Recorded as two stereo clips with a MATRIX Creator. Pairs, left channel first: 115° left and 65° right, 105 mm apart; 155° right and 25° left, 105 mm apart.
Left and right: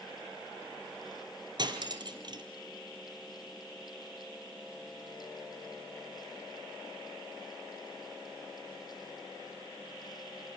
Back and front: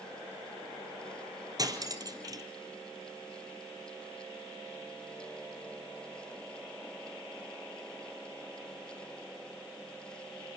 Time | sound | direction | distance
1.6 | cutlery clinking | 25° right | 1.9 m